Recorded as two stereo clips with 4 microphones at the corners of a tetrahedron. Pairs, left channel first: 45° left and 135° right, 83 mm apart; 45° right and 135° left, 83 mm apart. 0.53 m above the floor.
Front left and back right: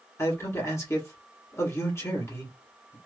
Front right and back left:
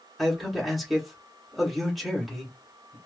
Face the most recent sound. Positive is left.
turn(degrees=45)